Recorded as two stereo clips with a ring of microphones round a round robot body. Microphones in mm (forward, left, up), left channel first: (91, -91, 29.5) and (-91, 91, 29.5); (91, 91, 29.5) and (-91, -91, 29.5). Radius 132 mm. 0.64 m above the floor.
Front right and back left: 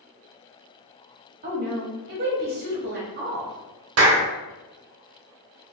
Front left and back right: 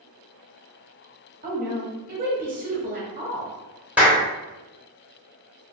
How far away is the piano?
I don't hear a piano.